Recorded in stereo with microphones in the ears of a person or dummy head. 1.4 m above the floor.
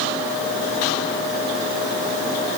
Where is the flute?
No flute in this recording.